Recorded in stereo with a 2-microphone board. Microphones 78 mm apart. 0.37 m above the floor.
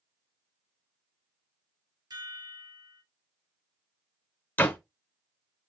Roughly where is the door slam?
Left.